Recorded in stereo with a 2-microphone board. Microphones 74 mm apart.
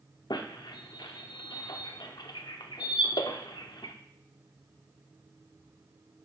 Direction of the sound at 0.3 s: 75° left (ahead or behind).